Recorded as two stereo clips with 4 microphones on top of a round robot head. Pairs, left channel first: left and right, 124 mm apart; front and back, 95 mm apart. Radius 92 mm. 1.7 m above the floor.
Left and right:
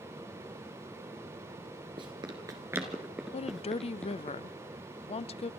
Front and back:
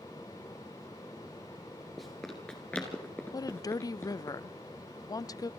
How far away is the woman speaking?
About 0.6 m.